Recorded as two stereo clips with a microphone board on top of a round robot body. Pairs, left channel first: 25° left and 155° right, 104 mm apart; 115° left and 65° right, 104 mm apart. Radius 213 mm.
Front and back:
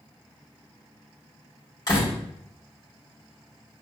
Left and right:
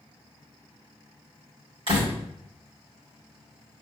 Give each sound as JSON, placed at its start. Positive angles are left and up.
{"t": 1.9, "sound": "a door slam", "azimuth_deg": -35, "distance_m": 2.5}